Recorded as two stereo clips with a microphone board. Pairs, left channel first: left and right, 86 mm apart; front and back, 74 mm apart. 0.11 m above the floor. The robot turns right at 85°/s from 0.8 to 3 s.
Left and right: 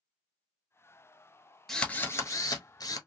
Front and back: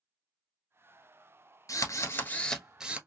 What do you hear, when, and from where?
1.7 s a drill: 5° left, 1.0 m; by 3.0 s 115° left, 1.0 m